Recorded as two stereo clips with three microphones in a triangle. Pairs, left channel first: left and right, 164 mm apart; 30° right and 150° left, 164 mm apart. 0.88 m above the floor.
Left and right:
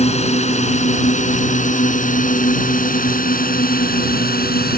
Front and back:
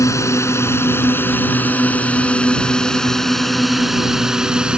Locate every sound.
0.0 s a drone: 40° left; by 4.8 s 65° left